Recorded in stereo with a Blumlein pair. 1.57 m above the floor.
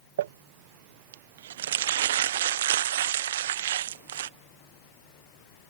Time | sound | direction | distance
0.2 | crumpling | 60° right | ?